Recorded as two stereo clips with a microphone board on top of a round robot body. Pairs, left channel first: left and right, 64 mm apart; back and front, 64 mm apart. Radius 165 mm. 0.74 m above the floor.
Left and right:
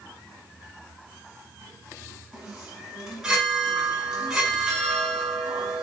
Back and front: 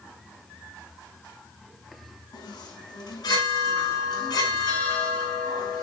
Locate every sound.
2.3 s a chime: 175° right, 6.5 m